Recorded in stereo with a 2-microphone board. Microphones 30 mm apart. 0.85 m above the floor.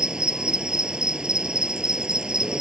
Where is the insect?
30° right (ahead or behind).